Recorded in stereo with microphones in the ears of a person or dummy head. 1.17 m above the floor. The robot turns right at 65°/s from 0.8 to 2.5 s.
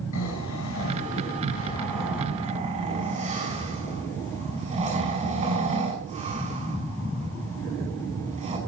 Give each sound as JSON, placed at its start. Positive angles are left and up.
{"t": 0.1, "sound": "snoring", "side_deg": 80, "distance_m": 6.0}